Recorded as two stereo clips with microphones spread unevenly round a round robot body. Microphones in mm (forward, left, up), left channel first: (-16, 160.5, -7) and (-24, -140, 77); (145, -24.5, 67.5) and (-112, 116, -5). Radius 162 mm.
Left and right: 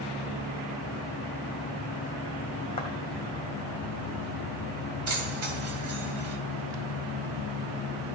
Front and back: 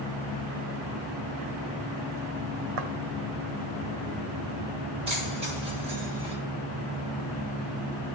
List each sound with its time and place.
2.8 s footsteps: 165° left, 1.7 m
5.1 s keys jangling: 135° right, 2.5 m